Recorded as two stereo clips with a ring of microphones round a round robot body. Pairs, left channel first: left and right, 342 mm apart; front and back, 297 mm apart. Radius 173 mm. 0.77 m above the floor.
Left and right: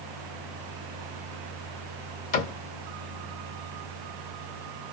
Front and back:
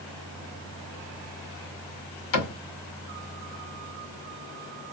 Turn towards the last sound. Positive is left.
turn(degrees=20)